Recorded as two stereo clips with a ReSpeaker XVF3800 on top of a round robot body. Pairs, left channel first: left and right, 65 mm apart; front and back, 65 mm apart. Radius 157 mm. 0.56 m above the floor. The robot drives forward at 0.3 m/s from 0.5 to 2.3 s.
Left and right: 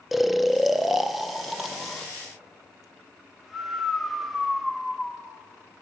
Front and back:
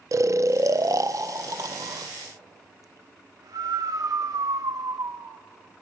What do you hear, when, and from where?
0.1 s snoring: straight behind, 0.7 m